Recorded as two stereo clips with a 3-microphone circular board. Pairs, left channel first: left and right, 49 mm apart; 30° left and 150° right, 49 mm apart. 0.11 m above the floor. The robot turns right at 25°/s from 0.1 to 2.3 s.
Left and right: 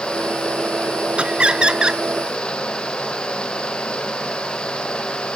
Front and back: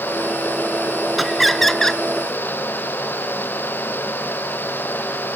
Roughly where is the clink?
No clink in this recording.